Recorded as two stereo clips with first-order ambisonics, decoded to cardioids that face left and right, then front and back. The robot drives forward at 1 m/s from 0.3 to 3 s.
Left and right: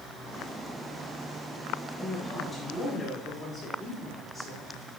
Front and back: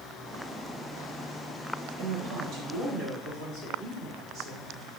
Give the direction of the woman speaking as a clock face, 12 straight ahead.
6 o'clock.